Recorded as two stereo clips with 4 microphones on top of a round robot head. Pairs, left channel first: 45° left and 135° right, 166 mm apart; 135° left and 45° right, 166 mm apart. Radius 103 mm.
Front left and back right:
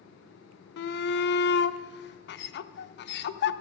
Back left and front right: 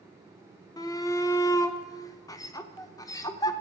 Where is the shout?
65° left, 0.8 m.